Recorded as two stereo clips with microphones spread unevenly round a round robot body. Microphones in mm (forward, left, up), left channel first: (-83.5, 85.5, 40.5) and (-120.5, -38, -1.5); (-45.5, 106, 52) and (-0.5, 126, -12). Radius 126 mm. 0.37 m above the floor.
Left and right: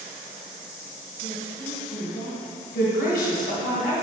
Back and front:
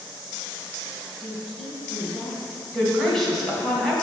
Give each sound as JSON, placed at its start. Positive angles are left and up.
{"t": 1.2, "sound": "a woman speaking", "azimuth_deg": 55, "distance_m": 2.0}
{"t": 2.7, "sound": "a woman speaking", "azimuth_deg": 60, "distance_m": 2.0}